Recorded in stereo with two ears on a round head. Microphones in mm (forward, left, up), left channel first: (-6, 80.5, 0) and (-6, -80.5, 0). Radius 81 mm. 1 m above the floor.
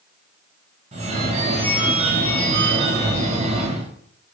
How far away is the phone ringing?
About 0.6 m.